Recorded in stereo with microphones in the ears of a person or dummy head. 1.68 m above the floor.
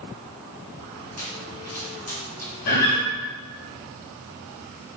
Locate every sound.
1.2 s a pop: 40° left (ahead or behind), 3 m
2.7 s a guitar: 55° left (ahead or behind), 1.8 m